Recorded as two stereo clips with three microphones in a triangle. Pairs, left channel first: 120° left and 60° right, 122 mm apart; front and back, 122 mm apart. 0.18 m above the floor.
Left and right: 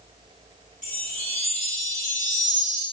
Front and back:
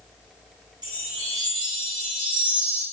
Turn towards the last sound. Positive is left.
turn(degrees=125)